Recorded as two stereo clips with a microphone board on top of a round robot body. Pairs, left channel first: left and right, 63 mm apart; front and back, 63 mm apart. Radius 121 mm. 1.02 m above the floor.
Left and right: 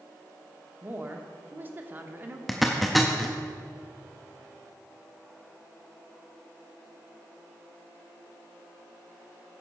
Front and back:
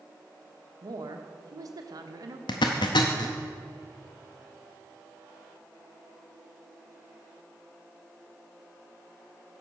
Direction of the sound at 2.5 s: Straight ahead.